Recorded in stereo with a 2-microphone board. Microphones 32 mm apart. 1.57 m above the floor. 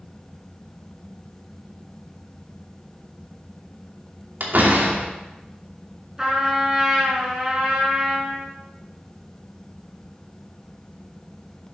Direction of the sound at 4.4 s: 65° right (ahead or behind).